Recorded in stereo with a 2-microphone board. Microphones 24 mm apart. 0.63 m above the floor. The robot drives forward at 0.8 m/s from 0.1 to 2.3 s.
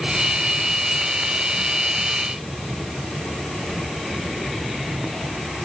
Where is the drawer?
No drawer in this recording.